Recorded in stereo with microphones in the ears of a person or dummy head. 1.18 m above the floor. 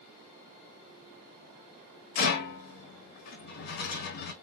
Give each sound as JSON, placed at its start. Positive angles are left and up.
{"t": 2.1, "sound": "a rattle", "side_deg": 50, "distance_m": 0.7}